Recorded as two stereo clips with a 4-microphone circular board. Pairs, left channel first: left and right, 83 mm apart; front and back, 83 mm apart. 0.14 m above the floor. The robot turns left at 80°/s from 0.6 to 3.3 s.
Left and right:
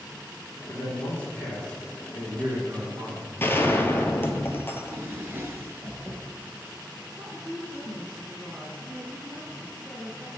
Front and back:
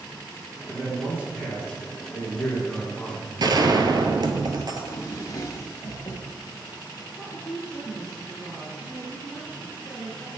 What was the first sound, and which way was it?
A man speaking, 85° left.